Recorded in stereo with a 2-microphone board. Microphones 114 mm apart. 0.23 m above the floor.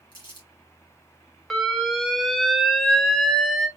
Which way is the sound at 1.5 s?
Centre (ahead or behind).